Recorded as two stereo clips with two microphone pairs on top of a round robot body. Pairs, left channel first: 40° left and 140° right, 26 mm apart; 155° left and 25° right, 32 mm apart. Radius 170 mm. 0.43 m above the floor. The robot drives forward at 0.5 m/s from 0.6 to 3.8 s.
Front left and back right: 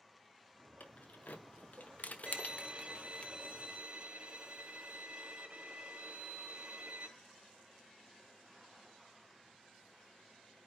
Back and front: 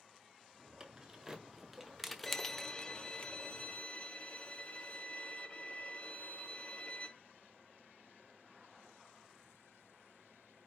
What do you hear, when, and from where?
0.8 s keys jangling: 40° left, 1.6 m; by 3.3 s 90° left, 1.1 m
2.3 s a violin: 140° right, 1.0 m; by 7.1 s 165° right, 1.5 m